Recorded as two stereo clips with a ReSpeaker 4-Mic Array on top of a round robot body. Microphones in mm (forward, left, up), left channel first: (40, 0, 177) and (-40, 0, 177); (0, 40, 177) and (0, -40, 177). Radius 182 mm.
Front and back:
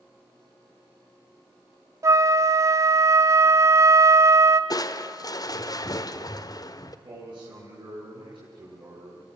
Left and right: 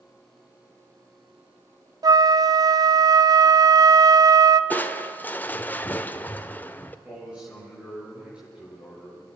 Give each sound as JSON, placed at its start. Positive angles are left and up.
{"t": 2.0, "sound": "a flute", "azimuth_deg": -130, "distance_m": 1.0}
{"t": 4.7, "sound": "crushing", "azimuth_deg": 25, "distance_m": 1.4}
{"t": 7.0, "sound": "a man speaking", "azimuth_deg": -170, "distance_m": 9.5}